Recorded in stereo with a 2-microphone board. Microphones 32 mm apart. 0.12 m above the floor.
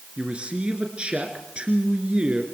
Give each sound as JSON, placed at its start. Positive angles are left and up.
{"t": 0.2, "sound": "a man speaking", "side_deg": -35, "distance_m": 2.0}